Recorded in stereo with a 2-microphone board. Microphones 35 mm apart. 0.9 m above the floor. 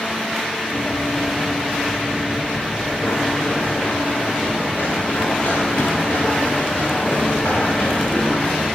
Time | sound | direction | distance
0.7 | running footsteps | 75° left (ahead or behind) | 4 m